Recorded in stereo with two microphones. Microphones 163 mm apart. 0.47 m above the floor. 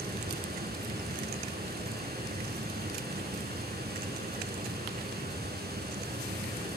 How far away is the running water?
About 5.5 m.